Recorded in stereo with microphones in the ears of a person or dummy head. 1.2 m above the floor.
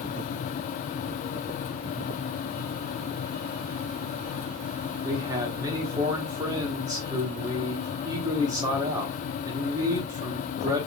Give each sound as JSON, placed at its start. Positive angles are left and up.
{"t": 5.0, "sound": "a man speaking", "side_deg": -15, "distance_m": 1.2}